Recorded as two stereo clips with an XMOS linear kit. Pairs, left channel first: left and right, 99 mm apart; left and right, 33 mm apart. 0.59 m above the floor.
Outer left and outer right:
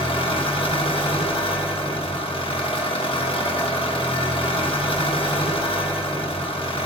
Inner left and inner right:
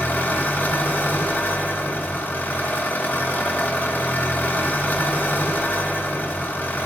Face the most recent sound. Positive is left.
turn(degrees=60)  # may be behind; listen again after turning